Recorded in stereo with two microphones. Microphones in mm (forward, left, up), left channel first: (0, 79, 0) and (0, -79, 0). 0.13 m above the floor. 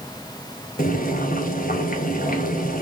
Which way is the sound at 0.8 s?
60° left (ahead or behind).